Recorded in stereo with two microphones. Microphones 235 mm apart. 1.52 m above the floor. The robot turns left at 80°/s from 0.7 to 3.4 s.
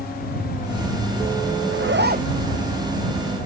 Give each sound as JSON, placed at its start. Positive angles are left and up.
{"t": 1.7, "sound": "a zipper", "azimuth_deg": -100}